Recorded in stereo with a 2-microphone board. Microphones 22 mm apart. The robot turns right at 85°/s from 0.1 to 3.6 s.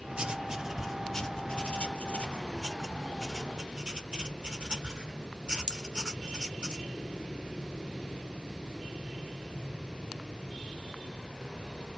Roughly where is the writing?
Right.